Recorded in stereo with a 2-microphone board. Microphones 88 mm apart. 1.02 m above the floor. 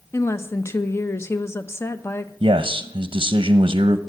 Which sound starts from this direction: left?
A woman speaking, at 0.1 s.